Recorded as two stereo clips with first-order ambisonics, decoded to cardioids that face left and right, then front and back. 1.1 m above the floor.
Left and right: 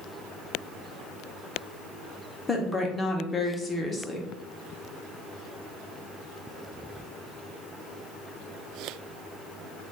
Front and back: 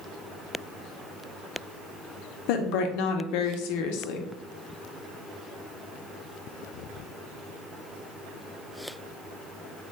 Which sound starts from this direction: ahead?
A woman speaking, at 2.5 s.